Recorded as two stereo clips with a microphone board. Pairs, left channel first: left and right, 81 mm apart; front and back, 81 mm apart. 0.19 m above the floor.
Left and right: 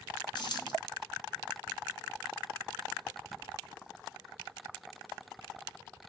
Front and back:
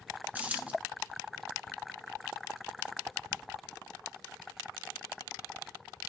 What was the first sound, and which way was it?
A dropped coin, 110° left.